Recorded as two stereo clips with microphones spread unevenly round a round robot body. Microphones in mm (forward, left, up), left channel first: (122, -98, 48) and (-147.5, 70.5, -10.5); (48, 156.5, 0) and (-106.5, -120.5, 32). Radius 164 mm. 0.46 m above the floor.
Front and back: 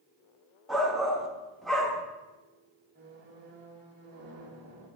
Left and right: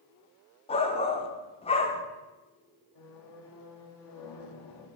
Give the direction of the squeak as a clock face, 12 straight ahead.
9 o'clock.